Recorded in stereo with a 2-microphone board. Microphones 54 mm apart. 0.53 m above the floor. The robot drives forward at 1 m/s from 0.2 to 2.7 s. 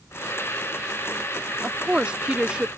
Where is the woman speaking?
20° right (ahead or behind); by 2.7 s 15° right (ahead or behind).